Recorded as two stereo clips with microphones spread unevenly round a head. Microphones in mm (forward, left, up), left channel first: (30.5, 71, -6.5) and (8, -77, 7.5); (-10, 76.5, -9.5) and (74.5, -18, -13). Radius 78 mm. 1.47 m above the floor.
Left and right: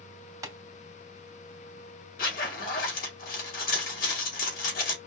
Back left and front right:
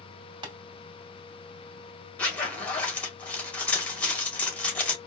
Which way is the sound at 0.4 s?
60° right.